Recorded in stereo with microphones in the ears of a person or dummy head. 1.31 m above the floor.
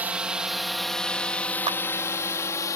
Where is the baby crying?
No baby crying in this recording.